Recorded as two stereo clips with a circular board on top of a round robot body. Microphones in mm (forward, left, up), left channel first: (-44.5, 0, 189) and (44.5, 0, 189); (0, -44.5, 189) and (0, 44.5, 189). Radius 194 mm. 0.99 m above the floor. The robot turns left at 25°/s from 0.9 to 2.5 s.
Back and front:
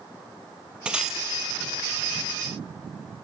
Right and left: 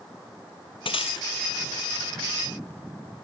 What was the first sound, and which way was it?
Breaking glass, 80° right.